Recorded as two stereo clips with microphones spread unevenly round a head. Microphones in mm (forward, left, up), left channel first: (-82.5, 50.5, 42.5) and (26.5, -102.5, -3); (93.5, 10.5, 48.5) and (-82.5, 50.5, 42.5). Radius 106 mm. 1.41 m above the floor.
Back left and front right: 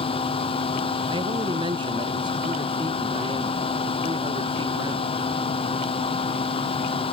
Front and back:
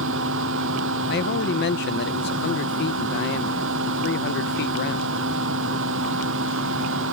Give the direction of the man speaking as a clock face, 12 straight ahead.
11 o'clock.